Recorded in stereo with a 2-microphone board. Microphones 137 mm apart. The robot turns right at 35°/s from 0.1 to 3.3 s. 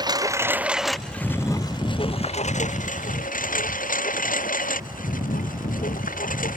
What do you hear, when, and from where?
0.0 s a lawn mower: 30° right (ahead or behind); by 6.6 s 90° left